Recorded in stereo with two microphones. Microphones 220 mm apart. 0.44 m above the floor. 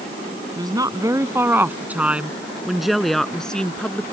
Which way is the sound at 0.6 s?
20° right (ahead or behind).